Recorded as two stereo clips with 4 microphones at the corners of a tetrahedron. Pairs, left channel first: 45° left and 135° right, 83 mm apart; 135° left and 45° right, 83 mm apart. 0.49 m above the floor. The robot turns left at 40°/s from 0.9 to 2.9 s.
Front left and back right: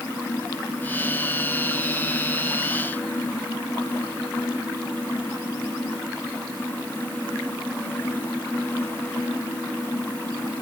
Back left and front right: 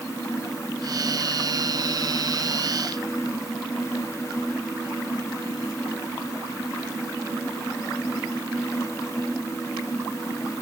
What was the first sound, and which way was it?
Only background noise.